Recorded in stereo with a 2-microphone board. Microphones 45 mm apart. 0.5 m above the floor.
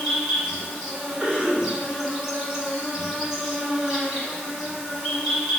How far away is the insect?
About 1.2 m.